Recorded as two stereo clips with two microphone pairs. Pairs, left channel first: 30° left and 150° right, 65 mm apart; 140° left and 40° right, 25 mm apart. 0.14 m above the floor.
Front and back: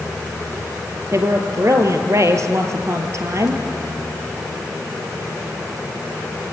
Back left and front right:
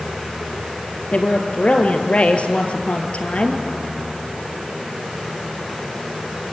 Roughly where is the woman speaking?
Behind.